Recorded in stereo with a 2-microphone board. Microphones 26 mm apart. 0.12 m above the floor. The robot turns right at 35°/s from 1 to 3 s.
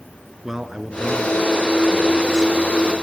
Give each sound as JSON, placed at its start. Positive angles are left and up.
{"t": 0.4, "sound": "a man speaking", "side_deg": -15, "distance_m": 1.6}